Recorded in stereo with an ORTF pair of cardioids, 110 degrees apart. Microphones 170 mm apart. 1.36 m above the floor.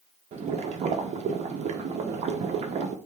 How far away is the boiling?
About 0.5 m.